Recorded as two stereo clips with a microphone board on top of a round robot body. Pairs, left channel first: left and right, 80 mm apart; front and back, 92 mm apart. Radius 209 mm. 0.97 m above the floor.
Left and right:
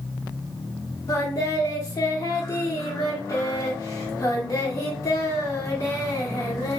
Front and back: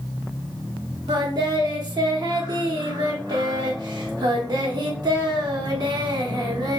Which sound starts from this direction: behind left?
Singing, at 1.1 s.